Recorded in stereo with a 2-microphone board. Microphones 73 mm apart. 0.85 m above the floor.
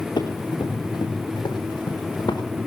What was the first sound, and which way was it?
Running footsteps, 70° left (ahead or behind).